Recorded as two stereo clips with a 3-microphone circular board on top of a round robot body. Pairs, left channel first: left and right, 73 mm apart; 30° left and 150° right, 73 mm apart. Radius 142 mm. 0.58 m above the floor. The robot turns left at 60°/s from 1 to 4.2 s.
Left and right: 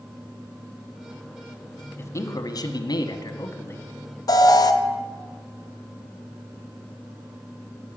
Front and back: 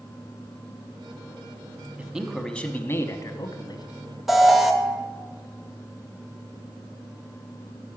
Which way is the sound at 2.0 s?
140° left.